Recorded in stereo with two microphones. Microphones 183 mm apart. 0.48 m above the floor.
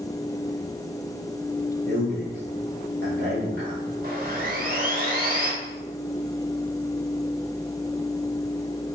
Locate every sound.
1.9 s a man speaking: 65° right (ahead or behind), 2 m
4.0 s sawing: 50° right (ahead or behind), 2 m